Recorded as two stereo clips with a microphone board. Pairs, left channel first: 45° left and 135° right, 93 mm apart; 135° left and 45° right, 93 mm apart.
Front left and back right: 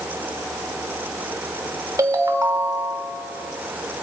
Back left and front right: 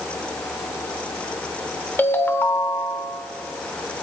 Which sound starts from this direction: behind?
A ringtone, at 2.0 s.